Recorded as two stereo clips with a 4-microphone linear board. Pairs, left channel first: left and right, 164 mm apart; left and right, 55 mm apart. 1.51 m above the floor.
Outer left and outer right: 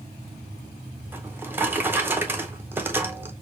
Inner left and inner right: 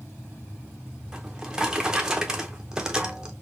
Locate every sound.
1.1 s a drawer: 10° right (ahead or behind), 0.6 m